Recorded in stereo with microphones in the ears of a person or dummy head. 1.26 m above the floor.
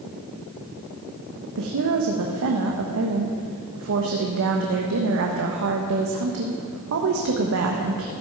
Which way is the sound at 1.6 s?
60° right (ahead or behind).